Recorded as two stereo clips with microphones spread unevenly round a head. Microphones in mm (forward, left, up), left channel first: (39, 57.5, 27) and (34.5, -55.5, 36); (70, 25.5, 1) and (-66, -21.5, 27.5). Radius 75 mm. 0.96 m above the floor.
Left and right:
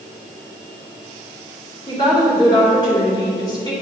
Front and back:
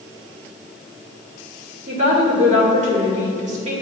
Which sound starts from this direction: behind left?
A woman speaking, at 1.9 s.